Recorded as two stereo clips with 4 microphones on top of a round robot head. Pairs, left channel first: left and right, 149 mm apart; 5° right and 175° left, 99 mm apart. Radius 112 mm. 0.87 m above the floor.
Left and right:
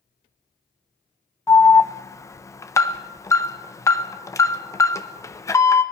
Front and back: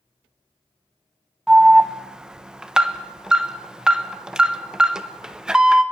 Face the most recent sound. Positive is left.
turn(degrees=105)